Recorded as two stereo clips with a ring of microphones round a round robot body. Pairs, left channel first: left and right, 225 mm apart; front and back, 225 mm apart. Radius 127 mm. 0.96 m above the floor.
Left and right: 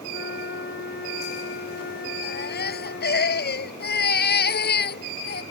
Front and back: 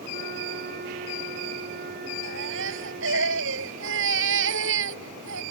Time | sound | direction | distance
0.1 | a flute | 130° left | ?
2.2 | a baby crying | 135° left | ?